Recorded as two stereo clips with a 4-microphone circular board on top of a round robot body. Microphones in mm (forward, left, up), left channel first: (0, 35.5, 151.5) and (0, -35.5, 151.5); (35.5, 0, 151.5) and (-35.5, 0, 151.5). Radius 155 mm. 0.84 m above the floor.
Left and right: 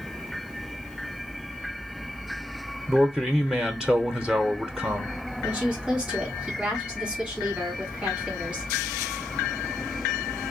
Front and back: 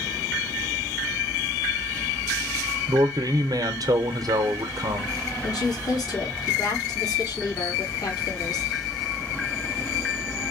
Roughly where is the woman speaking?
Ahead.